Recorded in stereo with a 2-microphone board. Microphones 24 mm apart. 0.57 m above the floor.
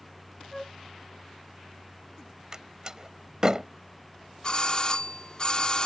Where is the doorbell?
35° left (ahead or behind).